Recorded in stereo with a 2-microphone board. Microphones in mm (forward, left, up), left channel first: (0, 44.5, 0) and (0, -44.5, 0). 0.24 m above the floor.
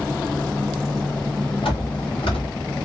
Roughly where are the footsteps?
Left.